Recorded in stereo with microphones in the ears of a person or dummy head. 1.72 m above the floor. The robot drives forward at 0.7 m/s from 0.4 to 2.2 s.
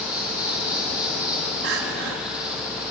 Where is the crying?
55° right (ahead or behind), 2.5 m.